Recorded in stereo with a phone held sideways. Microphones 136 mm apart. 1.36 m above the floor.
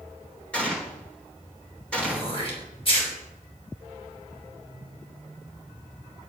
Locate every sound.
0.5 s a gunshot: 10° left (ahead or behind), 4 m
2.0 s throat clearing: 45° left (ahead or behind), 4.5 m